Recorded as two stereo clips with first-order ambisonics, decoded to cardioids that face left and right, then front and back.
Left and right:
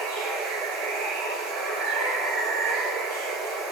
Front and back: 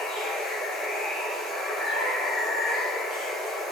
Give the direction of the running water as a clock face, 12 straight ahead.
2 o'clock.